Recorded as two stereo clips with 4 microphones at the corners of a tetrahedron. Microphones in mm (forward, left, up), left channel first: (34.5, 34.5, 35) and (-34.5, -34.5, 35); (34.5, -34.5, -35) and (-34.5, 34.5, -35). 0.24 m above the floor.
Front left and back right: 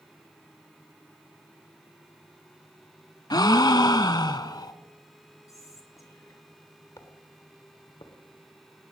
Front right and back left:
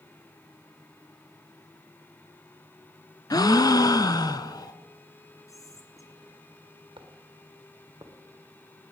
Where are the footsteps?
100° left, 2.5 m; by 8.1 s 80° left, 1.7 m.